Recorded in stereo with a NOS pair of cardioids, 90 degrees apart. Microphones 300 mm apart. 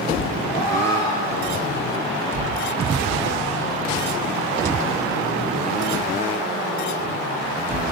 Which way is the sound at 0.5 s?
30° left.